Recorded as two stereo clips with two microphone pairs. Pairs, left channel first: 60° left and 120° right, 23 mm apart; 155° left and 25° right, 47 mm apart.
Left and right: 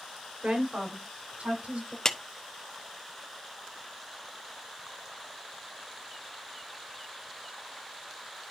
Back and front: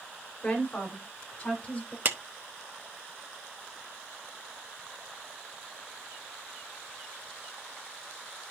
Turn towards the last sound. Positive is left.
turn(degrees=-5)